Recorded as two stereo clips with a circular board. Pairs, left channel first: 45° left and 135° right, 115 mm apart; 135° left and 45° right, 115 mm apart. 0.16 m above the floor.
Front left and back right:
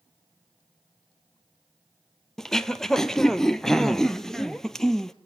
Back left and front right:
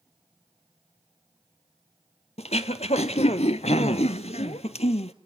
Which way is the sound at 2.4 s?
130° left.